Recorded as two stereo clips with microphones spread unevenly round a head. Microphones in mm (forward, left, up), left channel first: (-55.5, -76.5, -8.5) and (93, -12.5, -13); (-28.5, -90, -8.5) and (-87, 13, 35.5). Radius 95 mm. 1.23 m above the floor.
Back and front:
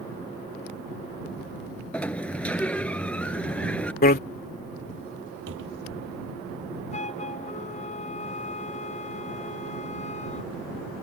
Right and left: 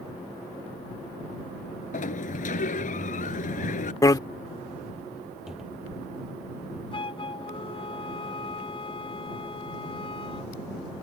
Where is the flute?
110° right.